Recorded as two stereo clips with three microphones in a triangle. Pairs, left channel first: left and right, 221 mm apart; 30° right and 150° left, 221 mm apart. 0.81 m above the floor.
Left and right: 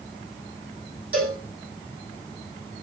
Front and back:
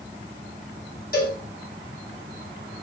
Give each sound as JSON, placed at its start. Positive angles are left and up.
{"t": 1.1, "sound": "a cowbell", "azimuth_deg": -80, "distance_m": 5.0}